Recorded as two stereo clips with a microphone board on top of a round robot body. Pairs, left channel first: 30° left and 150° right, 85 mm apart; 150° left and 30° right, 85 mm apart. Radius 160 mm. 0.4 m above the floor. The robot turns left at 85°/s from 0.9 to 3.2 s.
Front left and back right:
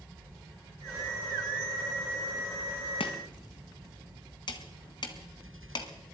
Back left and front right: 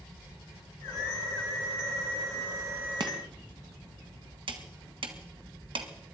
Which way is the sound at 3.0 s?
10° left.